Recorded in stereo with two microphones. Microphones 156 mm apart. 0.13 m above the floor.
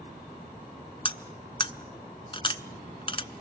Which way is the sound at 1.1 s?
35° left (ahead or behind).